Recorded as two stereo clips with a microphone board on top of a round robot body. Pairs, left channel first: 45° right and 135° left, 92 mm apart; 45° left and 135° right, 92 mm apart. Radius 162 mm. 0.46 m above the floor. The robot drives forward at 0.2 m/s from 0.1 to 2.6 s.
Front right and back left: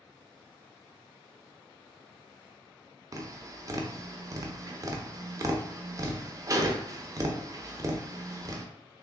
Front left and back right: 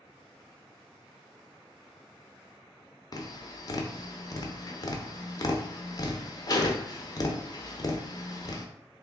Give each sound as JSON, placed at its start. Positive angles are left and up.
{"t": 3.1, "sound": "tapping", "azimuth_deg": 85, "distance_m": 0.7}